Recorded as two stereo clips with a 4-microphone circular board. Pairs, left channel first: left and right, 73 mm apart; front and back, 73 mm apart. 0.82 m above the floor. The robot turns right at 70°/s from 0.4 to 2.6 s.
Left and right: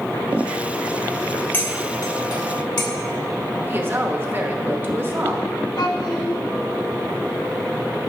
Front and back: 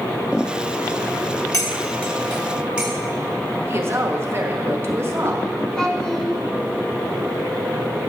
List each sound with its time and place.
1.5 s cutlery clinking: 30° left, 1.4 m; by 2.9 s 100° left, 1.4 m
3.7 s a woman speaking: 135° right, 1.0 m
5.8 s a child speaking: 80° left, 1.6 m